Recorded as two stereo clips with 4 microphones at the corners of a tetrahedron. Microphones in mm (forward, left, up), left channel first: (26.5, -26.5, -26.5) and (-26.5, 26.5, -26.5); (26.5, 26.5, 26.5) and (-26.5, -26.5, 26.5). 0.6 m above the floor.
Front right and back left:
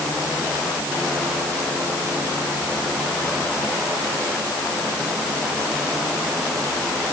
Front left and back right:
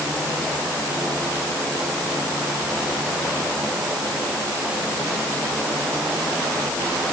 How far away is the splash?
I don't hear a splash.